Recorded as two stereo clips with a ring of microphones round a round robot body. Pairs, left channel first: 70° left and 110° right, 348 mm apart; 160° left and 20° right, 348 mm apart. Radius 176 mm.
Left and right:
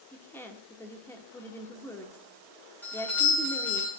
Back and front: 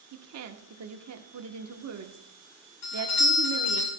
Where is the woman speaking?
15° right, 1.1 m.